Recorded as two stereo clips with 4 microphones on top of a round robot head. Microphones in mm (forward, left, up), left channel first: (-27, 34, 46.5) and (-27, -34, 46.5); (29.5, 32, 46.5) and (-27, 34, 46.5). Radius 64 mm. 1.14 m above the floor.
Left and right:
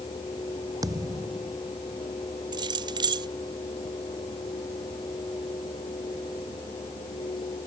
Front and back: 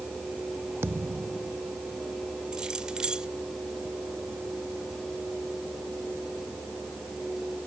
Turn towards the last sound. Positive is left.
turn(degrees=-100)